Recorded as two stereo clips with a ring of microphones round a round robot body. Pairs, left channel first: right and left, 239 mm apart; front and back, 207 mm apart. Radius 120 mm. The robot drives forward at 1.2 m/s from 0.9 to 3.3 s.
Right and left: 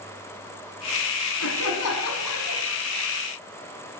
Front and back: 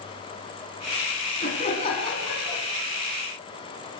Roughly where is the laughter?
Ahead right.